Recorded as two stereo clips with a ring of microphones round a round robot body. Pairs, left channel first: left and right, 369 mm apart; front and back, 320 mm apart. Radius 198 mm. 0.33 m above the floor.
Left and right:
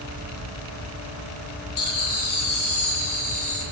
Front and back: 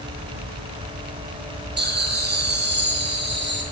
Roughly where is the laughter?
Behind left.